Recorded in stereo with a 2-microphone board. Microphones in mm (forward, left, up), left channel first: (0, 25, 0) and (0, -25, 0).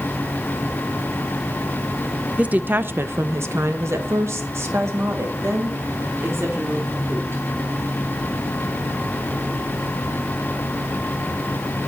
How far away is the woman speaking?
About 0.6 m.